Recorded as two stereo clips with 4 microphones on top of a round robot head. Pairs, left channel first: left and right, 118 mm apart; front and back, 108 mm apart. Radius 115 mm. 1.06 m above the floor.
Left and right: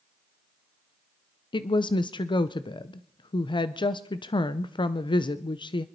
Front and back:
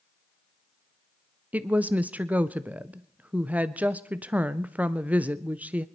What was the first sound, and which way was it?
A woman speaking, 110° left.